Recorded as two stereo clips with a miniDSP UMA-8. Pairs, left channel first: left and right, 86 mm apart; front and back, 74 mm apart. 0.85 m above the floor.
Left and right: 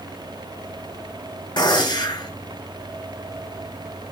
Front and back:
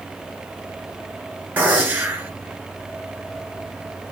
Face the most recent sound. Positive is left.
turn(degrees=110)